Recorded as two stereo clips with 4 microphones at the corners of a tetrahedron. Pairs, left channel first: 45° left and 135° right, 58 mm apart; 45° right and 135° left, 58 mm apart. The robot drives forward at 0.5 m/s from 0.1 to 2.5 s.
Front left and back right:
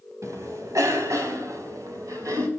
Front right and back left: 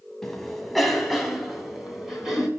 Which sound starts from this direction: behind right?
A cough, at 0.2 s.